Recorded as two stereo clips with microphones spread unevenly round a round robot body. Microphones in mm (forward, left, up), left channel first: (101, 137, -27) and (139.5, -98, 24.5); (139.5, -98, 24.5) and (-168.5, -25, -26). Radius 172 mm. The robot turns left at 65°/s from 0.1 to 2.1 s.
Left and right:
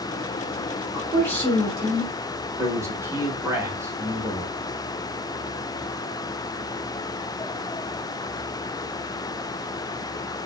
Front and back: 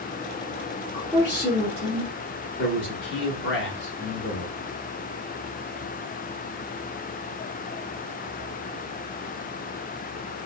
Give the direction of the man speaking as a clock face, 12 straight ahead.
12 o'clock.